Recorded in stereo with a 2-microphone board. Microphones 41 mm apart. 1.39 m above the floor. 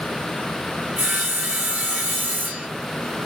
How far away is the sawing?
About 1.5 m.